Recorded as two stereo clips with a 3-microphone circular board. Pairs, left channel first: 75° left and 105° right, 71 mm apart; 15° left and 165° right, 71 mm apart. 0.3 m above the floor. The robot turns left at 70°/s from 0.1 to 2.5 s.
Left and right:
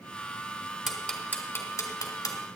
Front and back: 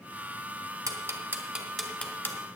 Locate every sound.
0.9 s ticking: 165° left, 2.0 m; by 2.4 s 60° left, 2.0 m